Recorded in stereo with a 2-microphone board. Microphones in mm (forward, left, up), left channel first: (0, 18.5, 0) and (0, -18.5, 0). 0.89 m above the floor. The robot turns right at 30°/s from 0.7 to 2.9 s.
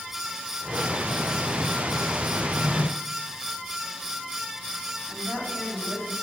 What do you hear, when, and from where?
2.4 s a drawer: 20° left (ahead or behind), 1.7 m; by 2.9 s 5° left (ahead or behind), 1.7 m
5.1 s a woman speaking: 55° right (ahead or behind), 5.5 m